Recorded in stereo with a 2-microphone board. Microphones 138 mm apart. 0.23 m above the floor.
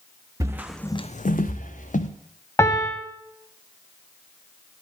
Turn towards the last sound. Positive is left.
turn(degrees=20)  # may be behind; listen again after turning